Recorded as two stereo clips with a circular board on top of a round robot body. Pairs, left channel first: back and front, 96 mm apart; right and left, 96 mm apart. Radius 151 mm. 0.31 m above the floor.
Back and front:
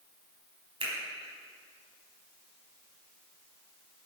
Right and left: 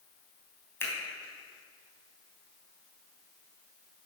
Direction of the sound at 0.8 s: 25° right.